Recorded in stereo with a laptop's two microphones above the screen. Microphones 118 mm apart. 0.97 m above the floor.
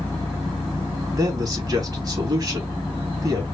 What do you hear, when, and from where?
1.1 s a man speaking: 35° right (ahead or behind), 3 m